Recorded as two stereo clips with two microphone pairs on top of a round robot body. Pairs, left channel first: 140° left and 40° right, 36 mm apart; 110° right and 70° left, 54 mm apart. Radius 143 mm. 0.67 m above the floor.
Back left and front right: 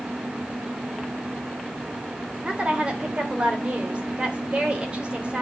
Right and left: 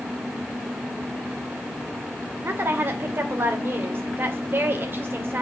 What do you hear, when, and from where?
2.4 s a woman speaking: 25° left, 2.5 m